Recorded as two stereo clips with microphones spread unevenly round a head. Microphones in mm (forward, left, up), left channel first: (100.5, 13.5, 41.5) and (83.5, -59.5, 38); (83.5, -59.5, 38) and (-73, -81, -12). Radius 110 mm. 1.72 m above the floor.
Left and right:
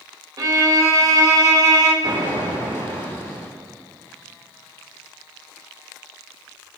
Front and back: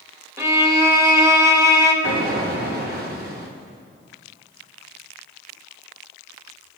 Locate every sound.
0.4 s a violin: 85° right, 1.9 m
2.0 s an explosion: 145° right, 2.5 m